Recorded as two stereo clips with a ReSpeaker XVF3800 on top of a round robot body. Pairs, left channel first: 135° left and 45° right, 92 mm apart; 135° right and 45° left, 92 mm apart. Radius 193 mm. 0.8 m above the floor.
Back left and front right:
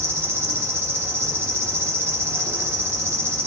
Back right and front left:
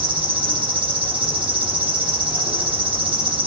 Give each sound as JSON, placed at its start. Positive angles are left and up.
{"t": 0.0, "sound": "an insect", "azimuth_deg": 20, "distance_m": 1.8}